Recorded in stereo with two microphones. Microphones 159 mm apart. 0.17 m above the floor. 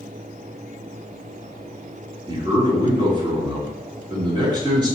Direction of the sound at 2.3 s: 30° right (ahead or behind).